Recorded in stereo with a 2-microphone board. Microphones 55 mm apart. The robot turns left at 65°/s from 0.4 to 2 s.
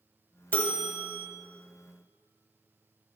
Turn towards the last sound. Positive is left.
turn(degrees=35)